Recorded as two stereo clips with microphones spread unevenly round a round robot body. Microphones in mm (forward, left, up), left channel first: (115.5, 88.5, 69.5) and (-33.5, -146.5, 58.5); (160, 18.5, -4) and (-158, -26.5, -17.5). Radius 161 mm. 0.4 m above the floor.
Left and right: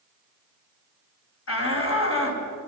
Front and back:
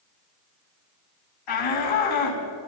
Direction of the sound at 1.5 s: 20° left.